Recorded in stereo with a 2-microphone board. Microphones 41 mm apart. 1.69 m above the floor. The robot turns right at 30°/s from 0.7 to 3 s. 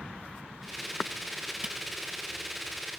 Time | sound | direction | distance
1.6 | a camera shutter | 20° right (ahead or behind) | ?